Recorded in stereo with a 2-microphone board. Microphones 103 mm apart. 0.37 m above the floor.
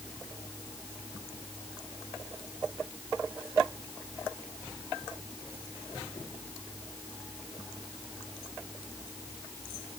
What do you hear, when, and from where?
Only background noise.